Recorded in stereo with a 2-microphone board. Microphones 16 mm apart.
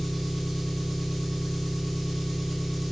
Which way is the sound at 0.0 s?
Centre (ahead or behind).